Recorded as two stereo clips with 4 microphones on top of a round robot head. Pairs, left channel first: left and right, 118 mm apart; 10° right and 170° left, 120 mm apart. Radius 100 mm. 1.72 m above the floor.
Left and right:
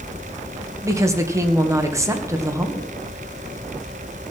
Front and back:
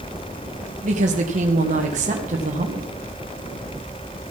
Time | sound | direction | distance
0.8 | a woman speaking | 155° right | 2 m